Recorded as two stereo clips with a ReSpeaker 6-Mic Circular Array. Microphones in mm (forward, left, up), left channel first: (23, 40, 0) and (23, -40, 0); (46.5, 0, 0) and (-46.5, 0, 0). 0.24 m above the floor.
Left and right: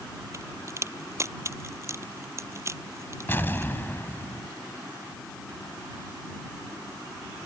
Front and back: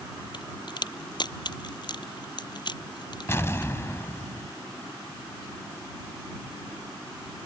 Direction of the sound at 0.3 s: 35° right.